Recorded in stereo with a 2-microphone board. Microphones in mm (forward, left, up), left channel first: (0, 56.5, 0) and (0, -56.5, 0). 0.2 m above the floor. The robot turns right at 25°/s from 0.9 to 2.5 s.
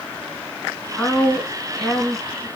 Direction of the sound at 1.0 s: 145° left.